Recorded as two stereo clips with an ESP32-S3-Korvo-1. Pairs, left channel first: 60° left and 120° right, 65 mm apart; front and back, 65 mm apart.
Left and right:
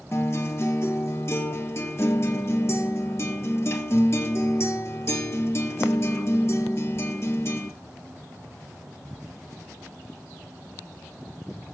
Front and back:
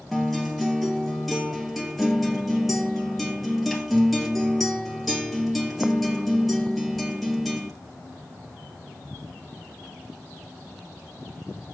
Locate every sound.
0.1 s a guitar: 90° left, 1.6 m